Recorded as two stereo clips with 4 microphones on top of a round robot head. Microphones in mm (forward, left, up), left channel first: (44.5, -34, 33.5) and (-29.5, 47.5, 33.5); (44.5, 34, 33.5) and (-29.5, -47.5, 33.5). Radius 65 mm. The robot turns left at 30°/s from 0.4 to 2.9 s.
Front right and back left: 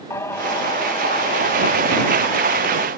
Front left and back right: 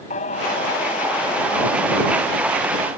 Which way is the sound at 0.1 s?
20° left.